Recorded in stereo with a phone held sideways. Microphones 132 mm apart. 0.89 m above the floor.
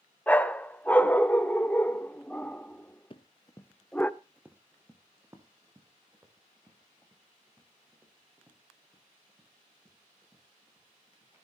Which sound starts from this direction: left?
Running footsteps, at 3.1 s.